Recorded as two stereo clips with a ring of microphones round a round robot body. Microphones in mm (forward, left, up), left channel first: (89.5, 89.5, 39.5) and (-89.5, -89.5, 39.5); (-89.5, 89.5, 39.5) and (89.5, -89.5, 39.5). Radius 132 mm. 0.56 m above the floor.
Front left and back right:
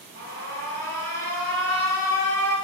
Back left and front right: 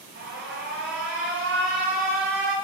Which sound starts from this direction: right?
An alarm, at 0.1 s.